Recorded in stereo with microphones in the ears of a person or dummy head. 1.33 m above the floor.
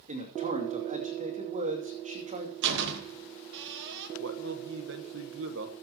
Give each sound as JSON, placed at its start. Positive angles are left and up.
{"t": 0.1, "sound": "a man speaking", "side_deg": -35, "distance_m": 2.5}
{"t": 2.6, "sound": "a door slam", "side_deg": -65, "distance_m": 1.3}
{"t": 4.2, "sound": "a man speaking", "side_deg": -65, "distance_m": 1.1}